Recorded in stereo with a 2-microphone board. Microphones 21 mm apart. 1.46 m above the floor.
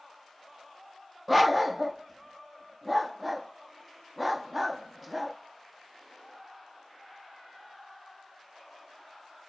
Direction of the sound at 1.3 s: 10° right (ahead or behind).